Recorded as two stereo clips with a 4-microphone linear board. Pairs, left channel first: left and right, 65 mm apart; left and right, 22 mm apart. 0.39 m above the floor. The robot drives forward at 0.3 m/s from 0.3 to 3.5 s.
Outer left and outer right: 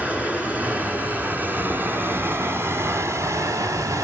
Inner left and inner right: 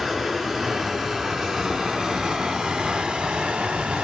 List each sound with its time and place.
0.0 s running water: 25° right (ahead or behind), 1.5 m; by 4.0 s 60° right (ahead or behind), 0.7 m